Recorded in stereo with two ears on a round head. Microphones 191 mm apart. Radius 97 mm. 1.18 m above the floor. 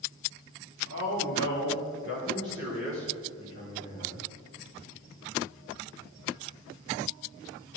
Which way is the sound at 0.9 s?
60° left (ahead or behind).